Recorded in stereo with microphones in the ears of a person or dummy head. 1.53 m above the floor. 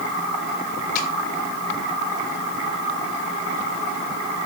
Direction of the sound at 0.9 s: 50° left (ahead or behind).